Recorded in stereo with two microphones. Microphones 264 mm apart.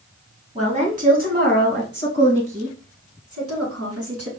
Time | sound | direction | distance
0.6 | a woman speaking | 25° right (ahead or behind) | 2 m